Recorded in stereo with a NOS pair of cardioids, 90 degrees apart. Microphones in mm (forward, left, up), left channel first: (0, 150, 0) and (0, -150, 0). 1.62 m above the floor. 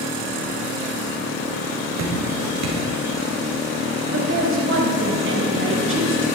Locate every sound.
2.0 s dripping: 60° right, 3.5 m
4.1 s a woman speaking: 40° right, 3 m